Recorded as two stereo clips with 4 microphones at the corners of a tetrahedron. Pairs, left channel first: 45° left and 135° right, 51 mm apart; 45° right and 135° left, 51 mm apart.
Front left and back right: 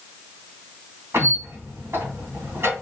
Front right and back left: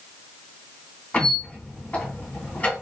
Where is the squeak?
105° right, 2.5 m.